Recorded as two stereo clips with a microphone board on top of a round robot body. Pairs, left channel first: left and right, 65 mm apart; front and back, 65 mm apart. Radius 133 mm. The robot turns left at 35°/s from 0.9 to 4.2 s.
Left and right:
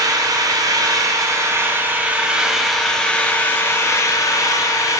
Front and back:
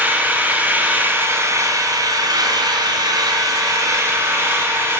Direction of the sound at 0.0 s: 115° right.